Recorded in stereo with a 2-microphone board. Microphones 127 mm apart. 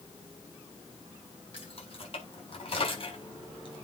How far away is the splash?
No splash in this recording.